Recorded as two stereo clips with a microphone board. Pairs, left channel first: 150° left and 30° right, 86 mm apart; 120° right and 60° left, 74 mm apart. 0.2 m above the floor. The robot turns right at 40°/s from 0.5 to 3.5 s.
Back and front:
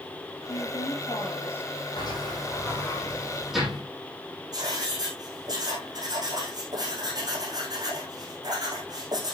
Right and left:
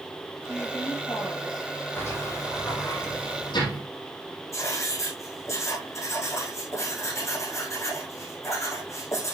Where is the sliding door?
Straight behind, 6.5 m; by 3.8 s 120° right, 6.5 m.